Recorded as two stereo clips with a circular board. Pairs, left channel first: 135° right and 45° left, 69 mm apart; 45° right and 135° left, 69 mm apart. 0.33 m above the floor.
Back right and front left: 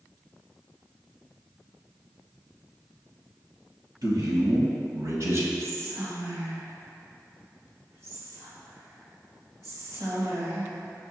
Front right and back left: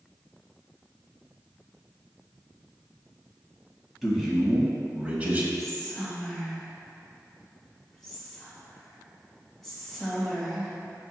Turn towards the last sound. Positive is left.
turn(degrees=40)